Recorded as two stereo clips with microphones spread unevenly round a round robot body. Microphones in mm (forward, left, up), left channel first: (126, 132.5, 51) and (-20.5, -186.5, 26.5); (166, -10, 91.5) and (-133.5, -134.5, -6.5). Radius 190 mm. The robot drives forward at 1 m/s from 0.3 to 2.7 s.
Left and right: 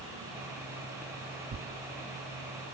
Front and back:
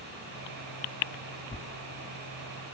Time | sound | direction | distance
1.5 | tearing paper | 60° right | 0.8 m